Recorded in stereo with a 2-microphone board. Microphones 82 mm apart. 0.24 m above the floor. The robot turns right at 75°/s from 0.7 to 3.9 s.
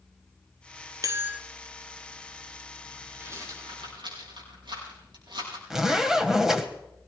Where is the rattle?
30° right (ahead or behind), 5.5 m; by 5.6 s 80° right, 5.5 m.